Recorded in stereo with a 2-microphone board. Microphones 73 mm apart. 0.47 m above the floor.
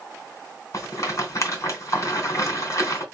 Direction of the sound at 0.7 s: 45° left (ahead or behind).